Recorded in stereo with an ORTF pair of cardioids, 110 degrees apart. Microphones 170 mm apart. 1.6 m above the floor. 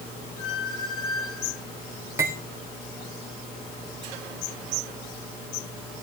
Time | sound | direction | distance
0.4 | a squeak | 30° left | 3 m
2.2 | cutlery clinking | 15° right | 3 m